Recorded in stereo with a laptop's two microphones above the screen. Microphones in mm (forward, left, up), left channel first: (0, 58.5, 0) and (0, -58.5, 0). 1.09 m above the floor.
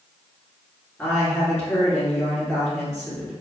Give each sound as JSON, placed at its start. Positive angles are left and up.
{"t": 1.0, "sound": "a woman speaking", "side_deg": 20, "distance_m": 1.7}